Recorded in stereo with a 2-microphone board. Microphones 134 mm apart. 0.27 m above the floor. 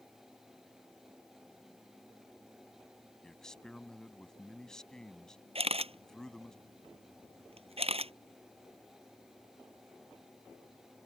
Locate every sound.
3.2 s a man speaking: 5° left (ahead or behind)
5.5 s a camera shutter: 50° right (ahead or behind)